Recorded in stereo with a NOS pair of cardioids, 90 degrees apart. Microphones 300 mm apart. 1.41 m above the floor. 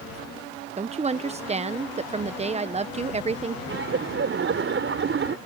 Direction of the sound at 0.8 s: 20° right.